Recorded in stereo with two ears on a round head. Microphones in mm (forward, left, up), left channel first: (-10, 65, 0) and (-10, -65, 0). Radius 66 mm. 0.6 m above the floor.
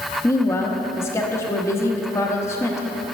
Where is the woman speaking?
20° left (ahead or behind), 0.8 m.